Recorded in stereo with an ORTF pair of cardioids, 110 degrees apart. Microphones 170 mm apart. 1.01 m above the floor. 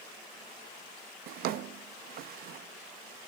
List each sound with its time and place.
1.3 s a drawer: 65° right, 0.5 m